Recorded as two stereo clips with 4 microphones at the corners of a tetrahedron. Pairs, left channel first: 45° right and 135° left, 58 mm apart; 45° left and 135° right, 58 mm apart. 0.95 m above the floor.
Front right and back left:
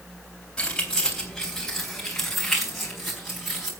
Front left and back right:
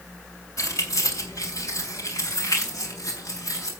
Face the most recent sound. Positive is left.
turn(degrees=50)